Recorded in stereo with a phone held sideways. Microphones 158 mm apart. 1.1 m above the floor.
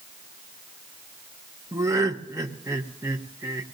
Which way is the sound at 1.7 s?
20° right (ahead or behind).